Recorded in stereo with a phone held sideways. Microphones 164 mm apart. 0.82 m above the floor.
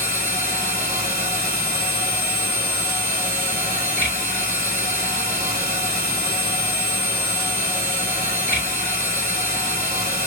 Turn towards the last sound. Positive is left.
turn(degrees=70)  # may be behind; listen again after turning